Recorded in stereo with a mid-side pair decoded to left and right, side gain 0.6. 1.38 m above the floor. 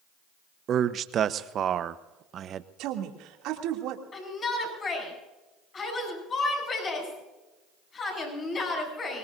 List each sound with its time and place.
0.7 s a man speaking: 45° right, 1.0 m
2.8 s a woman speaking: 70° right, 3 m
4.1 s a shout: 35° left, 8.5 m